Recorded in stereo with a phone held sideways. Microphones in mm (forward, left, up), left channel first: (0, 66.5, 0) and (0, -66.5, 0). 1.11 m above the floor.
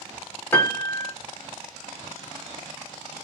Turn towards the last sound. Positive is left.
turn(degrees=15)  # may be behind; listen again after turning